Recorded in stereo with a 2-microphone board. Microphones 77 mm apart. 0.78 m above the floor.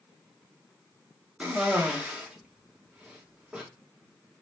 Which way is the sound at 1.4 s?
15° right (ahead or behind).